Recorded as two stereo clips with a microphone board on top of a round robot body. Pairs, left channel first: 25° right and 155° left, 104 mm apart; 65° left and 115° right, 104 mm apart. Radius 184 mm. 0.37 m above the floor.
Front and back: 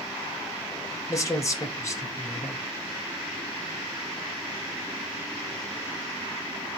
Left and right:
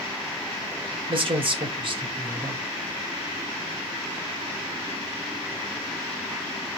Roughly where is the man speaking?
Right.